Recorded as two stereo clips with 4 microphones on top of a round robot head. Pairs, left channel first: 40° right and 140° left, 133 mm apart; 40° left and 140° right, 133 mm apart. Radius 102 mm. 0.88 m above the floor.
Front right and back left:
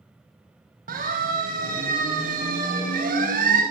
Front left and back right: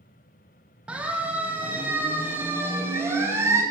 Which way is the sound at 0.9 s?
135° left.